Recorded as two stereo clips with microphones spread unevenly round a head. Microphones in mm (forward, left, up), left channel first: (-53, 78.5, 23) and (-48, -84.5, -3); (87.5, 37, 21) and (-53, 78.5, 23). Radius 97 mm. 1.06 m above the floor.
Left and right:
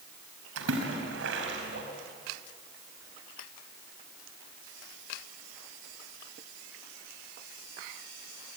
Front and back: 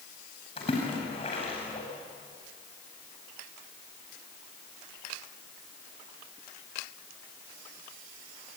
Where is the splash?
80° right, 5 m.